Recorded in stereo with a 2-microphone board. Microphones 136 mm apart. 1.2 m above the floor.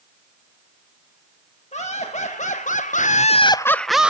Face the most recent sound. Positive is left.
turn(degrees=-5)  # may be behind; listen again after turning